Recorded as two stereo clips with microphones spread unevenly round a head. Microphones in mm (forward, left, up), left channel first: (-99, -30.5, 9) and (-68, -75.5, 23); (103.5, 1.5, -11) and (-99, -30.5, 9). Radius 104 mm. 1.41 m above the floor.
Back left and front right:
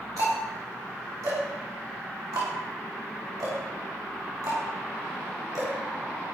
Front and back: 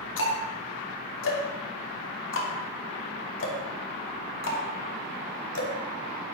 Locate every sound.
0.2 s ticking: 15° right, 3 m